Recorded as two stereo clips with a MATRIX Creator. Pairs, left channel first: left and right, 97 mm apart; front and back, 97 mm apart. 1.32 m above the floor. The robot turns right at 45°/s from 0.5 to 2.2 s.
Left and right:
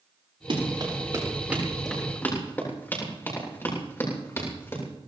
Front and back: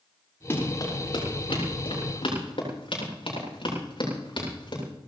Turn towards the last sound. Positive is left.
turn(degrees=30)